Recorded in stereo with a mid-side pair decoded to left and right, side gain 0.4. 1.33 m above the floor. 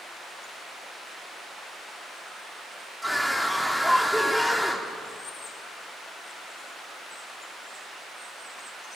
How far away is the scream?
About 4 m.